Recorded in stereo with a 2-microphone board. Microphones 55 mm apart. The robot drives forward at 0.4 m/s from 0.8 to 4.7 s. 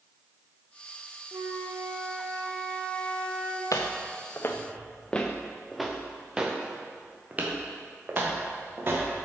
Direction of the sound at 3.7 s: 75° left (ahead or behind).